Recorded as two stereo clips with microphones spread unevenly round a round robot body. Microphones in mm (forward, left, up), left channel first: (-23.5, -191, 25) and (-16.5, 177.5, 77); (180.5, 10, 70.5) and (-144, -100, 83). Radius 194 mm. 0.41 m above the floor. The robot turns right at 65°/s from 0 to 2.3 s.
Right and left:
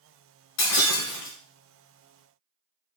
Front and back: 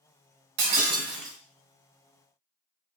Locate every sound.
0.6 s breaking glass: 140° right, 1.6 m; by 1.4 s 90° right, 1.6 m